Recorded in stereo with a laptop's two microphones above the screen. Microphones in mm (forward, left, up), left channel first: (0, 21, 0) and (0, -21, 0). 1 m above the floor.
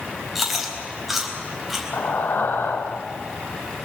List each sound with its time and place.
0.3 s chewing: 5° right (ahead or behind), 4.5 m
1.9 s breathing: 55° left (ahead or behind), 1.4 m